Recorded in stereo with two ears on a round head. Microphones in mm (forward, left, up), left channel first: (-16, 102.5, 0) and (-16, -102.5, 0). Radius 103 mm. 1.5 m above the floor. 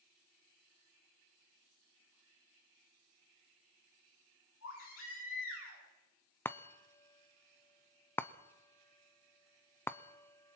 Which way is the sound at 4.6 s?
60° left (ahead or behind).